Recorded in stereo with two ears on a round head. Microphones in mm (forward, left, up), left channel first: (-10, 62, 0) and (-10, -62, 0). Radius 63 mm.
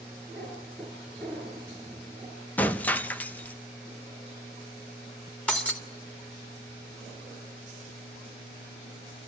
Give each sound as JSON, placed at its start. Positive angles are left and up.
{"t": 0.3, "sound": "a cat meowing", "side_deg": 10, "distance_m": 5.5}
{"t": 2.6, "sound": "breaking glass", "side_deg": 10, "distance_m": 0.6}
{"t": 5.5, "sound": "breaking glass", "side_deg": 10, "distance_m": 1.7}